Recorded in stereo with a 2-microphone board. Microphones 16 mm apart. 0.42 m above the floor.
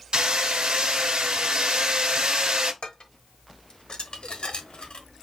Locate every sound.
0.1 s hammering: 70° right (ahead or behind), 1.2 m
2.8 s dishes clattering: 60° left (ahead or behind), 0.9 m